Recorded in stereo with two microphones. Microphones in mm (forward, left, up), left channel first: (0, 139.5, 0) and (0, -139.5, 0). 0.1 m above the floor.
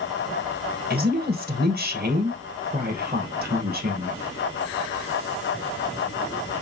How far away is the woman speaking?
About 1.9 m.